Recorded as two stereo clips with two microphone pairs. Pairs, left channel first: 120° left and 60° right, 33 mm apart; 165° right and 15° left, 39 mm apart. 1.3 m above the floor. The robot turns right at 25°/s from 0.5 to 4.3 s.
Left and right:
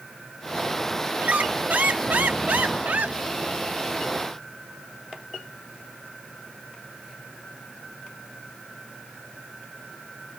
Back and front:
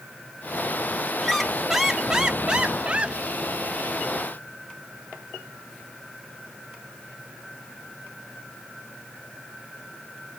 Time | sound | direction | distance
1.2 | a squeak | 80° right | 0.7 m